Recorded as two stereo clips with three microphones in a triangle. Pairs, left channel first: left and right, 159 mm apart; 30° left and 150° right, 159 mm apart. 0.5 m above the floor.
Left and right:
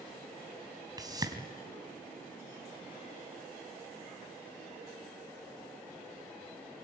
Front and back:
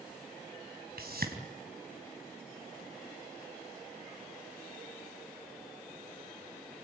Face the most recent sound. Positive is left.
turn(degrees=-155)